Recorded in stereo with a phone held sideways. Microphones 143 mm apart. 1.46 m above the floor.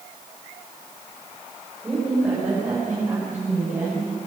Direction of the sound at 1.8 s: 10° right (ahead or behind).